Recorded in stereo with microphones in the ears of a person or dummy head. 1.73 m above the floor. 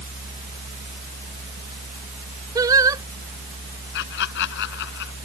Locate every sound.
0.0 s a fan: 50° right (ahead or behind)
2.5 s singing: 20° right (ahead or behind)
3.9 s laughter: 65° left (ahead or behind)